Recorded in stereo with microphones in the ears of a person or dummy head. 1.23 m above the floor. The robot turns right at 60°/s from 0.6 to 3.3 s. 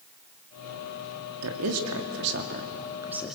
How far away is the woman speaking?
About 2.5 m.